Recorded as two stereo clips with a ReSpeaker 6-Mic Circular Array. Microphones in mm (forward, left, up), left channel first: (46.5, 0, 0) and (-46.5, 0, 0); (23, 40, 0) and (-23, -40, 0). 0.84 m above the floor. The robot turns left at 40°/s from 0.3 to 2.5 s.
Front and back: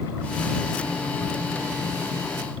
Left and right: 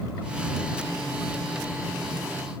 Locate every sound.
Only background noise.